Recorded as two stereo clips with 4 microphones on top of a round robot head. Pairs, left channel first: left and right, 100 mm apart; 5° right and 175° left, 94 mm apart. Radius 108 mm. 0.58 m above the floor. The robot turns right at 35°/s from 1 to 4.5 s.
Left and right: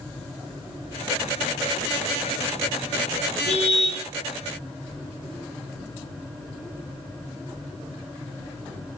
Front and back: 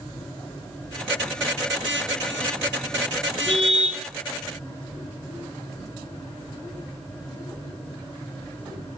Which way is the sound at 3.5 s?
80° left.